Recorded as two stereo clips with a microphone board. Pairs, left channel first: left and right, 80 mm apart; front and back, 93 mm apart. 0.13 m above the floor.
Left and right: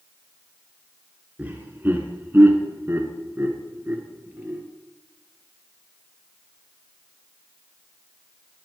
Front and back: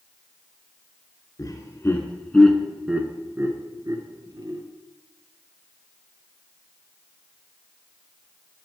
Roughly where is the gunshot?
I don't hear a gunshot.